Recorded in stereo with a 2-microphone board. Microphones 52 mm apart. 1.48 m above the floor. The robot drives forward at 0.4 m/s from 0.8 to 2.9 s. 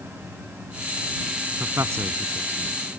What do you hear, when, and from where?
1.6 s a man speaking: 65° right (ahead or behind); by 2.7 s 60° right (ahead or behind)